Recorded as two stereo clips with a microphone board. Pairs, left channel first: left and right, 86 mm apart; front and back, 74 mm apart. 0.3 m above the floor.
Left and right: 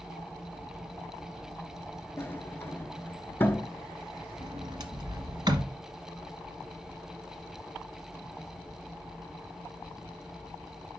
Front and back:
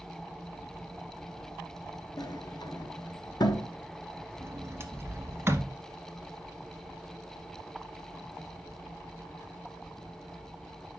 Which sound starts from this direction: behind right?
A sliding door, at 4.4 s.